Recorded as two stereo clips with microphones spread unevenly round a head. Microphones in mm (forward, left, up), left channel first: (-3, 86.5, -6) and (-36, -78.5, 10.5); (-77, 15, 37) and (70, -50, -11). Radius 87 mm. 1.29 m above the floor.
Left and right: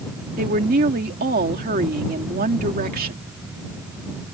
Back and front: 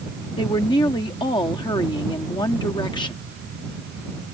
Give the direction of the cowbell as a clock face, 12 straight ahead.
I don't hear a cowbell.